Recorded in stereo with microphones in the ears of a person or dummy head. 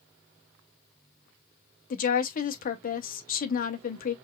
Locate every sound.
1.9 s a woman speaking: 45° left (ahead or behind), 0.9 m